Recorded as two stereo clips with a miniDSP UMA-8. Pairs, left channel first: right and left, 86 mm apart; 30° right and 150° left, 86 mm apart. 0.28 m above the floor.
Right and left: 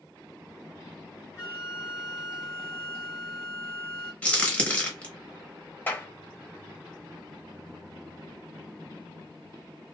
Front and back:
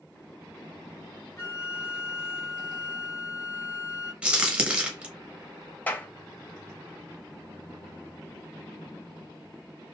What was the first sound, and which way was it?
A flute, 65° right.